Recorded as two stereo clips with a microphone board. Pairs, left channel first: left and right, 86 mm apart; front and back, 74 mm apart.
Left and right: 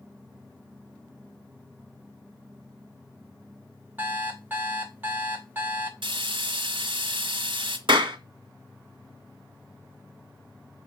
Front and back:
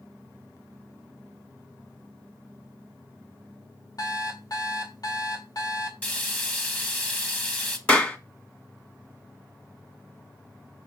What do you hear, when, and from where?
4.0 s an alarm clock: 25° right, 2.0 m
6.0 s frying: 70° right, 1.8 m
7.9 s a clap: 70° right, 2 m